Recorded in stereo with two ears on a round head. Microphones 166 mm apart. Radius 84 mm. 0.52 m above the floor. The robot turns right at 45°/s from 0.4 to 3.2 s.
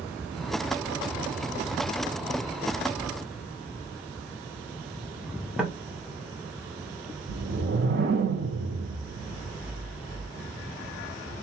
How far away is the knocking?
About 1.4 m.